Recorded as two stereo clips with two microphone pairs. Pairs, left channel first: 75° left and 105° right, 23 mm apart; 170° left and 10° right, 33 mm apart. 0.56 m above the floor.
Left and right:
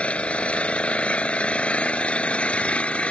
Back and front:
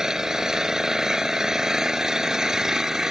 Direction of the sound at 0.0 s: 65° left.